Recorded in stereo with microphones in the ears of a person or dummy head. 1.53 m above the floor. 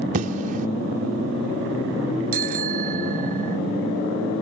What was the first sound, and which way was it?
An explosion, 45° right (ahead or behind).